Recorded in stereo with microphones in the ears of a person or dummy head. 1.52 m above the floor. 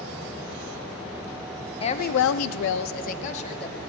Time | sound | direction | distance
1.8 | a woman speaking | 30° left (ahead or behind) | 0.7 m